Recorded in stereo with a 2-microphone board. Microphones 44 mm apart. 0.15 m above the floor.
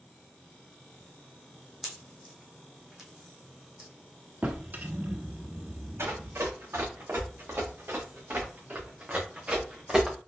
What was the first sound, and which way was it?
A pop, 10° right (ahead or behind).